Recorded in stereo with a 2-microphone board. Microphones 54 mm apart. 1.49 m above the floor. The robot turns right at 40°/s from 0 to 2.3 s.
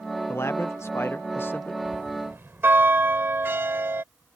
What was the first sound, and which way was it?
A man speaking, 75° left.